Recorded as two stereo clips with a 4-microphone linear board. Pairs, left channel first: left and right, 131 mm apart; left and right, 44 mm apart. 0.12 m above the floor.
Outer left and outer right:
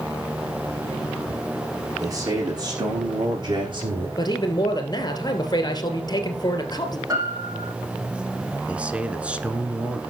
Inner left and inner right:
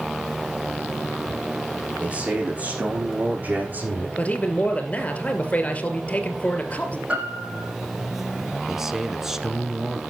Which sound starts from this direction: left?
A man speaking, at 4.2 s.